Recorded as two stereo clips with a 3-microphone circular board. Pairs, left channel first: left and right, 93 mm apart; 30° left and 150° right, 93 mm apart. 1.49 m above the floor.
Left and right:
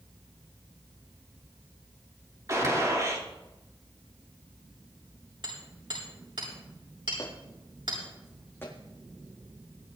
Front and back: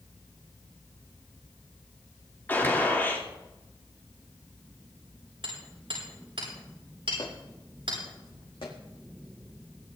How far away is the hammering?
About 8 m.